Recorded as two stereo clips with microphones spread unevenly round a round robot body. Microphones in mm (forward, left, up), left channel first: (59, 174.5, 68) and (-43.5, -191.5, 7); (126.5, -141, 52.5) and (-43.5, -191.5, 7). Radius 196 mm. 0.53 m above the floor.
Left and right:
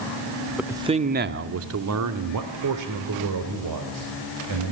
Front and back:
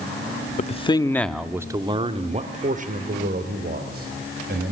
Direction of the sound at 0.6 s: 30° right.